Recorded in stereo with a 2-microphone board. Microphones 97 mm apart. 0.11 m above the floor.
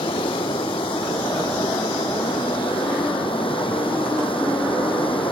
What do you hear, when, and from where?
0.0 s running water: 65° left (ahead or behind)